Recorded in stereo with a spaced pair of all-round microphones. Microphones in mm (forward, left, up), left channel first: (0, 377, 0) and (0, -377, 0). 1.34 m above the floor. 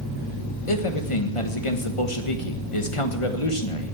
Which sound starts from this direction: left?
A man speaking, at 0.7 s.